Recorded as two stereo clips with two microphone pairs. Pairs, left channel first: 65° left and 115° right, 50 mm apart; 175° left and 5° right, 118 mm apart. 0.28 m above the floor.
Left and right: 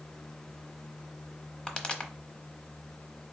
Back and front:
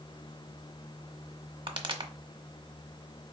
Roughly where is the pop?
Ahead.